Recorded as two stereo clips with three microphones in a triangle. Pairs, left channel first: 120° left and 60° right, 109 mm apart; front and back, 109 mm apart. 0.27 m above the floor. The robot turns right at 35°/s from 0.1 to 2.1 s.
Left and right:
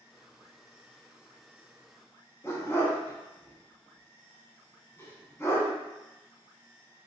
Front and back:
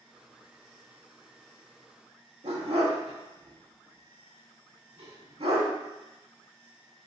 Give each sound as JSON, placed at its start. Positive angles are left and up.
{"t": 2.4, "sound": "a dog barking", "azimuth_deg": -175, "distance_m": 0.6}